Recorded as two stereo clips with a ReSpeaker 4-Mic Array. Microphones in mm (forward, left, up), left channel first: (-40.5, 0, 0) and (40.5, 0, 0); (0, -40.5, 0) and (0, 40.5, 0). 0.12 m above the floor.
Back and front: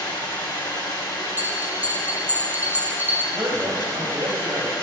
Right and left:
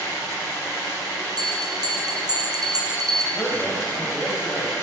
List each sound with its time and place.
0.0 s running water: 145° right, 3 m
1.4 s a bell: 65° left, 1.0 m
3.3 s a man speaking: 40° right, 3.5 m